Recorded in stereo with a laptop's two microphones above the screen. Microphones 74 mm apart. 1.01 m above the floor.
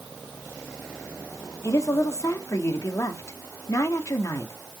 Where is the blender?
I don't hear a blender.